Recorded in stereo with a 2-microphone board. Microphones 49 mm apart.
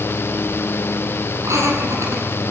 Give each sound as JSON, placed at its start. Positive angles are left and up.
{"t": 1.4, "sound": "laughter", "side_deg": -80, "distance_m": 10.0}